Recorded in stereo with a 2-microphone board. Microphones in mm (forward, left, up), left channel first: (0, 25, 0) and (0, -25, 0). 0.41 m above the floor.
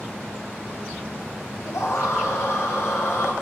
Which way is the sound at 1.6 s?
80° left.